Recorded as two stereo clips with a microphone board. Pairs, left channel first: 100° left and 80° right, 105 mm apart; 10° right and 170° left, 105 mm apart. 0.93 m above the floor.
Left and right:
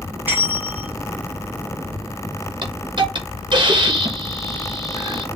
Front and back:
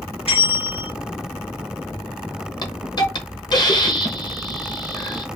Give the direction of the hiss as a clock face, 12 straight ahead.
2 o'clock.